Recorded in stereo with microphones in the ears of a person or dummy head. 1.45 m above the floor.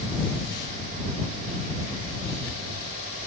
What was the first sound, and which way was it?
Only background noise.